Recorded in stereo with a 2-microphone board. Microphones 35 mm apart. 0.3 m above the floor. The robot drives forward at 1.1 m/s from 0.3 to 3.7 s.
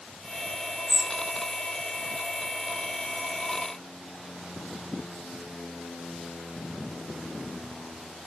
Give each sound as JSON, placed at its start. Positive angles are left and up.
{"t": 0.9, "sound": "a bird", "side_deg": -10}